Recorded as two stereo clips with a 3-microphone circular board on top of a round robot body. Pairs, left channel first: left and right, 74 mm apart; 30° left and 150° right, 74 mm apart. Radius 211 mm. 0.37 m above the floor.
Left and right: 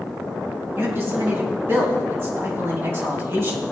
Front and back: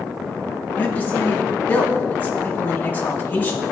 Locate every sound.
0.8 s a man speaking: 35° right, 3.5 m